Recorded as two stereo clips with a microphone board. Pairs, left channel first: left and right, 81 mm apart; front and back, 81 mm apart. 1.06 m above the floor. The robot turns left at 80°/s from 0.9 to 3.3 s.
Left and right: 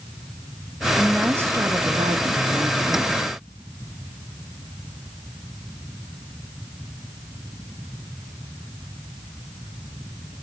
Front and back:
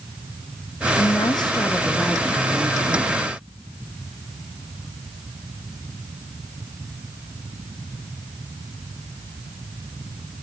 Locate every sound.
1.0 s a woman speaking: 5° left, 1.0 m; by 3.2 s 175° right, 1.0 m